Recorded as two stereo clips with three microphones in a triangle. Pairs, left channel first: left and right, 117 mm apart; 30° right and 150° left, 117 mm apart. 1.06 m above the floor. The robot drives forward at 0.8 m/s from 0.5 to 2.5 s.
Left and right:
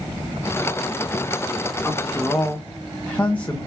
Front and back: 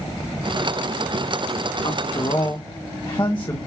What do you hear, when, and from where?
1.8 s a man speaking: 10° left, 1.9 m; by 3.6 s 15° left, 1.4 m